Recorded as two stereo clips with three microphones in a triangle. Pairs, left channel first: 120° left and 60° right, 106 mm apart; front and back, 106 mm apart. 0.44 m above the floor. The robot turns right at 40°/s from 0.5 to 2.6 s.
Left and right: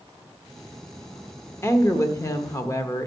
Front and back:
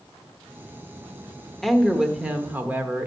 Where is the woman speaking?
85° left, 0.8 m; by 3.1 s 125° left, 0.8 m.